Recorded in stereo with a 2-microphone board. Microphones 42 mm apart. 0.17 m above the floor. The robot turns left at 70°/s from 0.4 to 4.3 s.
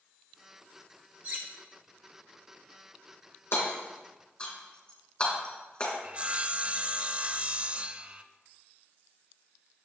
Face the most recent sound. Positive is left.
turn(degrees=-30)  # may be behind; listen again after turning